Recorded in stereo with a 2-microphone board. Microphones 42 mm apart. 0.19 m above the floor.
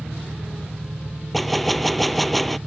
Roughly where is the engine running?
Right.